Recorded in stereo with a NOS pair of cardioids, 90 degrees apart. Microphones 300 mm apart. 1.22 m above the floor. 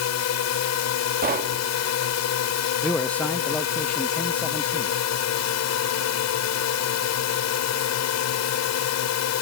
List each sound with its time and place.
0.0 s a drone: 65° left
1.2 s knocking: 30° right
2.8 s a man speaking: 5° left